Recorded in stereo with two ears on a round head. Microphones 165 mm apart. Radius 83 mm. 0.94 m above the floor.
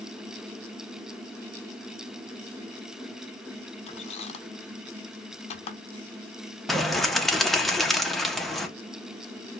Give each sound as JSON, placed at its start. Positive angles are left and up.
{"t": 3.9, "sound": "a squeak", "side_deg": 35, "distance_m": 0.7}
{"t": 6.7, "sound": "a bird", "side_deg": 0, "distance_m": 0.6}